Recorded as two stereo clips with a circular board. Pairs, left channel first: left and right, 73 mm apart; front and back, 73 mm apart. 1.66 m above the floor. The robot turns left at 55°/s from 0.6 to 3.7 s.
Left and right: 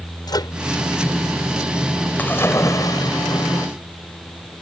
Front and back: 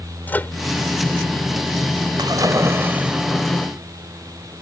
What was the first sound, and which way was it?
A microwave, 70° left.